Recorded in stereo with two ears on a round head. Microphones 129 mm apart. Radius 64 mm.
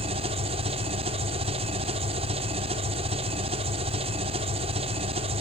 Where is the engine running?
40° right (ahead or behind), 1.6 m.